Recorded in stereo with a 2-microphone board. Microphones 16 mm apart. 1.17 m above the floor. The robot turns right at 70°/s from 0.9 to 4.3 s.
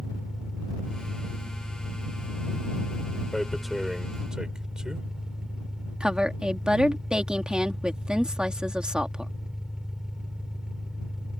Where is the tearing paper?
15° left (ahead or behind); by 5.1 s 55° right (ahead or behind).